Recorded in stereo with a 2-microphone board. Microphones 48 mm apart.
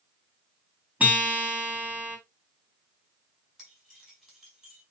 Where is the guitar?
35° right (ahead or behind), 3 m.